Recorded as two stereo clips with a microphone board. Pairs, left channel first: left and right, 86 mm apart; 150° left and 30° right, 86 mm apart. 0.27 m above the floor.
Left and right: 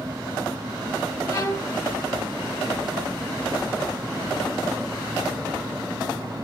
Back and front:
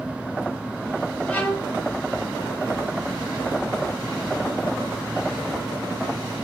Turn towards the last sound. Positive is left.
turn(degrees=95)